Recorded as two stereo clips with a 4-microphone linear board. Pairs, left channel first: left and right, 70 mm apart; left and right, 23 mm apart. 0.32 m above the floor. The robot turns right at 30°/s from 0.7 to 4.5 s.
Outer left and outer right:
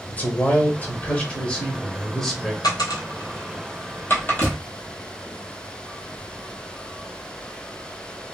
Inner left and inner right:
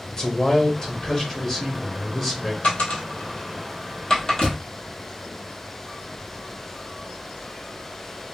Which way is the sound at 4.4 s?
50° left (ahead or behind).